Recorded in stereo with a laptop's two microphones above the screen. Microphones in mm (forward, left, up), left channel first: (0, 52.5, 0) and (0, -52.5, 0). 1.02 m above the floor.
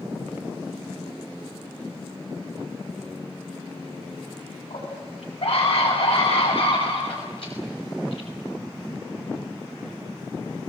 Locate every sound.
4.7 s a scream: 65° left (ahead or behind), 7 m; by 8.3 s 60° left (ahead or behind), 5 m